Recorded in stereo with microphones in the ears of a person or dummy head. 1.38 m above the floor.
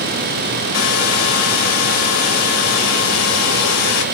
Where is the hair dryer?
90° left, 2.5 m.